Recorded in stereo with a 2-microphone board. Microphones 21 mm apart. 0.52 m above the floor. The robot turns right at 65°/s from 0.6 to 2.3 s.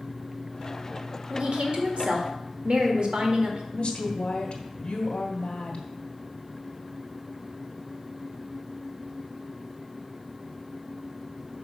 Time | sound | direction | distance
1.3 | a woman speaking | 125° right | 1.5 m
3.7 | a woman speaking | 55° left (ahead or behind) | 1.7 m